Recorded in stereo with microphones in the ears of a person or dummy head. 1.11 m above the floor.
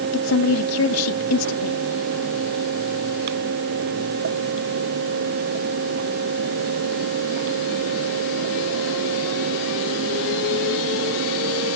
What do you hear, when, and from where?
0.1 s a woman speaking: 85° left